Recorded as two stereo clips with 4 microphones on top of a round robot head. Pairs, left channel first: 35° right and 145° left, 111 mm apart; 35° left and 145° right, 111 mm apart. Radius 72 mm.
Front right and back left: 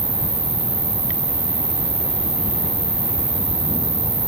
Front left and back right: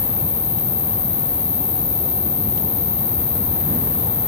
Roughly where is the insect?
Left.